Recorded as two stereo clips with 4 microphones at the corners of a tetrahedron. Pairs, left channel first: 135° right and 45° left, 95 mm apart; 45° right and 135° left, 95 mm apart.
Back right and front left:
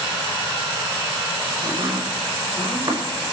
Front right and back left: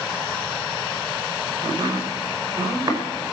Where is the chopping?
80° left, 5.5 m.